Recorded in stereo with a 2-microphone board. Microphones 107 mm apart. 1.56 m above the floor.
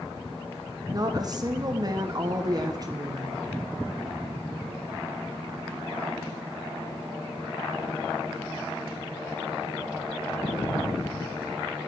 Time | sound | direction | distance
0.9 | a woman speaking | 40° right (ahead or behind) | 1.0 m